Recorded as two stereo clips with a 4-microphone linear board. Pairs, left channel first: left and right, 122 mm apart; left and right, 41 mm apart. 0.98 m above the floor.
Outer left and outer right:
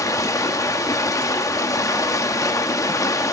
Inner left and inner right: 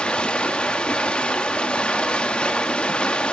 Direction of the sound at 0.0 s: 30° left (ahead or behind).